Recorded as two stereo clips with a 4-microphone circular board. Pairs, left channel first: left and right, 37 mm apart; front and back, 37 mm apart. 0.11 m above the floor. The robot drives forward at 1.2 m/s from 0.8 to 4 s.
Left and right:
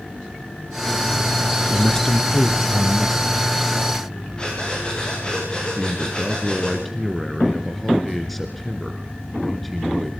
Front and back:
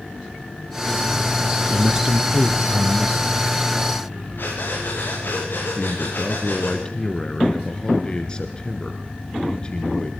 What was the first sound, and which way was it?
A man speaking, 125° left.